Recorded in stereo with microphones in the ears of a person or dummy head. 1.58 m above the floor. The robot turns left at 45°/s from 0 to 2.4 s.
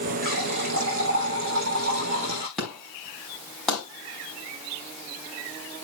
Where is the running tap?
50° right, 3.5 m; by 2.5 s 150° right, 3.5 m.